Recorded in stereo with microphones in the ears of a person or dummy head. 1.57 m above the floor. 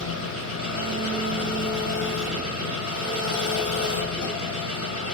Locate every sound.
0.0 s an engine running: 75° left (ahead or behind), 5.5 m